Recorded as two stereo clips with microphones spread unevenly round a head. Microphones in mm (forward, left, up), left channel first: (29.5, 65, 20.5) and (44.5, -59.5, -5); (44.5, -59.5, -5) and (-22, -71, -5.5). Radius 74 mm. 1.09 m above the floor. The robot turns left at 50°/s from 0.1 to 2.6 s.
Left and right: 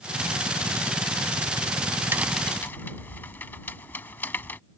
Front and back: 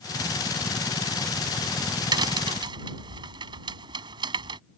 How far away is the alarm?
No alarm in this recording.